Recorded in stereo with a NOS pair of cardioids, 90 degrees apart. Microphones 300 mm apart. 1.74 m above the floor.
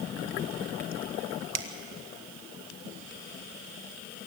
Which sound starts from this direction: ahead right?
A finger snap, at 1.5 s.